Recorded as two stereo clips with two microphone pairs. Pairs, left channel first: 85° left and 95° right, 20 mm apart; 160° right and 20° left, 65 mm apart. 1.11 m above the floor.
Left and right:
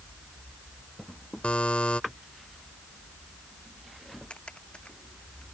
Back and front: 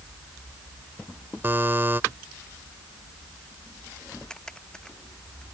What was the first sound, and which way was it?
A buzzer, 70° left.